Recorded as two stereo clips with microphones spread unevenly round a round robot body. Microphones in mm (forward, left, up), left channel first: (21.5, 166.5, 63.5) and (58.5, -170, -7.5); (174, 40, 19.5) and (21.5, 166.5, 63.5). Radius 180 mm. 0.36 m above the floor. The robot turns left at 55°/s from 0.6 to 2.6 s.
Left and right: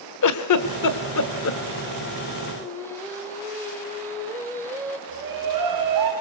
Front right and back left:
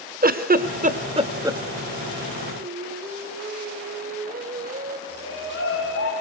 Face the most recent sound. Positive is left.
turn(degrees=-60)